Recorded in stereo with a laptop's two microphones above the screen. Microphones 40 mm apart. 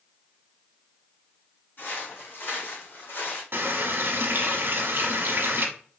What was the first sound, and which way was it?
Footsteps, 60° left (ahead or behind).